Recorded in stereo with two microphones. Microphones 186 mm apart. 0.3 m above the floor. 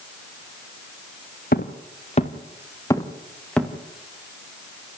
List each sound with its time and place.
1.5 s footsteps: 55° left (ahead or behind), 2.5 m; by 3.7 s 5° left (ahead or behind), 4 m